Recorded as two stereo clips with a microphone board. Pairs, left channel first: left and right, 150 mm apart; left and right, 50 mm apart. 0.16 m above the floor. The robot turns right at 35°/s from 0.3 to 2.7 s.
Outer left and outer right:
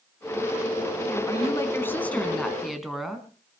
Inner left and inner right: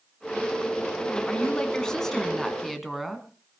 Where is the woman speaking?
130° left, 1.8 m; by 3.3 s straight behind, 1.8 m.